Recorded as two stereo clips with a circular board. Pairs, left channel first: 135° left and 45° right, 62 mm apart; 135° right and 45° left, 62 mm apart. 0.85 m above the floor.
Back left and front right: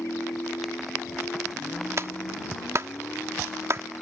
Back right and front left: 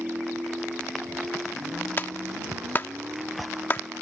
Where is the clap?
85° right.